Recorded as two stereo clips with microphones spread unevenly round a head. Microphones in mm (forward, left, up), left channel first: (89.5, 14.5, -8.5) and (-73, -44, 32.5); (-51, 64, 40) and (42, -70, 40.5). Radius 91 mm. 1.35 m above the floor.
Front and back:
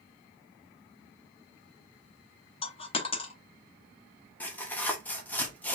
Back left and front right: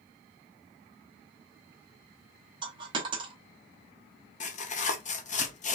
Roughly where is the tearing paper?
Left.